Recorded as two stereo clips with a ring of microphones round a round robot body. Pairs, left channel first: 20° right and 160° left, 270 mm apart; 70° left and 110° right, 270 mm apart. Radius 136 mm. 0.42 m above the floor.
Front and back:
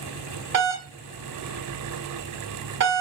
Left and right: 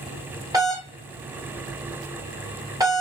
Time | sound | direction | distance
0.5 | a doorbell | 175° left | 1.6 m